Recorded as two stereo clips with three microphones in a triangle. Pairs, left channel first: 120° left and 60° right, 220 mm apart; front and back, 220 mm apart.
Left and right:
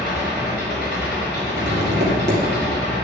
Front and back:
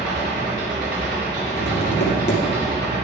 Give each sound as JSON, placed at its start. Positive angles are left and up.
{"t": 0.0, "sound": "an engine running", "azimuth_deg": 150, "distance_m": 2.5}
{"t": 1.6, "sound": "tapping", "azimuth_deg": -30, "distance_m": 1.9}